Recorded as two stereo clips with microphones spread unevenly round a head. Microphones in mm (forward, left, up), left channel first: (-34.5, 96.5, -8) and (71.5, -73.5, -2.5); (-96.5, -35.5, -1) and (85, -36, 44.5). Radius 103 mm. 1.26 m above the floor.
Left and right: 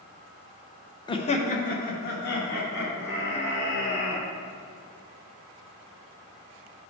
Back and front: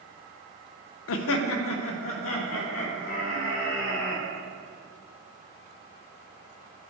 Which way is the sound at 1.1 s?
165° right.